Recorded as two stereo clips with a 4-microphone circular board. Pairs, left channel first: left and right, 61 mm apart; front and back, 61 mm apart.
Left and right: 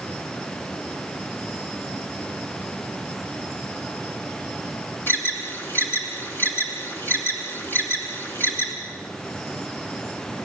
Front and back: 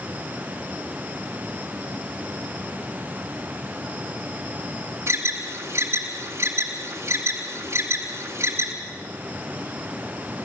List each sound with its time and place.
5.1 s an alarm: 145° left, 3 m